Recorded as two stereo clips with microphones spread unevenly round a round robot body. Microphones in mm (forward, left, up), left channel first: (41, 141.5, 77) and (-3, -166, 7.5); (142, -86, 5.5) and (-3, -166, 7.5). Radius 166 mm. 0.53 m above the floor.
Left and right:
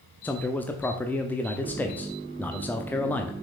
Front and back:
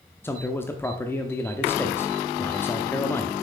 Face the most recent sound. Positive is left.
turn(degrees=-25)